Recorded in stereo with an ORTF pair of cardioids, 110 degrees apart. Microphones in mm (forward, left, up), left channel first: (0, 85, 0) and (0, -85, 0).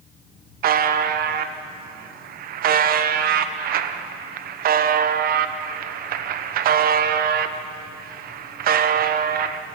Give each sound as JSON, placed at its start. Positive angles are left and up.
{"t": 0.6, "sound": "a buzzer", "azimuth_deg": -60, "distance_m": 1.1}